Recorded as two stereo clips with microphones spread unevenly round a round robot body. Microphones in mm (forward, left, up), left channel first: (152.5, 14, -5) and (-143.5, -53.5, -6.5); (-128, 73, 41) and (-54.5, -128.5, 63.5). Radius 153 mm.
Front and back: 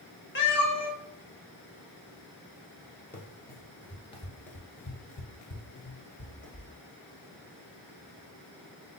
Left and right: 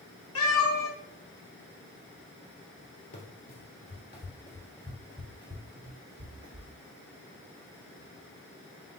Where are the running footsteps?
95° left, 1.1 m; by 6.7 s 45° right, 1.3 m.